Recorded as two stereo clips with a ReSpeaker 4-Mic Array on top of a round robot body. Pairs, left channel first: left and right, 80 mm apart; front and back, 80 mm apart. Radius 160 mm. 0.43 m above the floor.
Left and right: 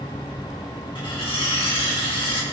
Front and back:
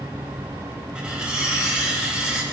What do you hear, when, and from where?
0.9 s cutlery clinking: 105° left, 2.5 m